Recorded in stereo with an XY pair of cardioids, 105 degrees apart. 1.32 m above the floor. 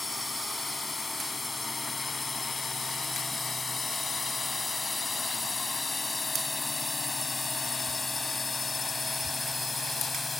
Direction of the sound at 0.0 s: 20° left.